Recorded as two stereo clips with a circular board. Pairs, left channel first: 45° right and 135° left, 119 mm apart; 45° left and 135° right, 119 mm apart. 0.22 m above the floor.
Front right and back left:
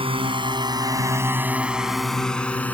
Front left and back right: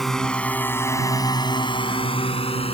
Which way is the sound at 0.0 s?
130° left.